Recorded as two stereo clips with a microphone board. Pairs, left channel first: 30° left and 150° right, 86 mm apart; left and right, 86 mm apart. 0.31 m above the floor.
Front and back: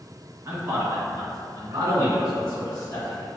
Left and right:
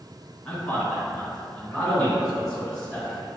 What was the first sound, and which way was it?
A man speaking, 165° left.